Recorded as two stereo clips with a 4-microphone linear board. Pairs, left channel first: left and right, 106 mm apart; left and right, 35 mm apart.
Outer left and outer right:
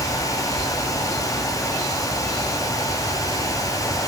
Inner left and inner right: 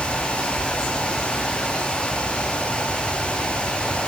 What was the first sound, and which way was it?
Only background noise.